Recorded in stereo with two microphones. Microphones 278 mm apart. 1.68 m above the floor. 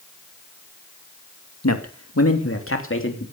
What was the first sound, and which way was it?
A man speaking, 70° left (ahead or behind).